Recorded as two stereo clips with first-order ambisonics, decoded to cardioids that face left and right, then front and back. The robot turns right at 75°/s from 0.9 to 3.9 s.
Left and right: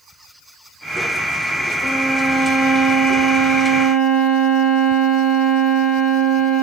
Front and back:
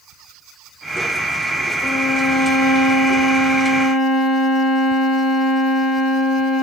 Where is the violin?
95° left, 0.9 m; by 6.6 s 105° right, 0.9 m.